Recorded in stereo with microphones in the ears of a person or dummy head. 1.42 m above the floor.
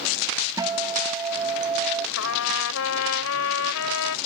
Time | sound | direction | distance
0.6 | a guitar | 15° right (ahead or behind) | ?
2.2 | a trumpet | 85° left | ?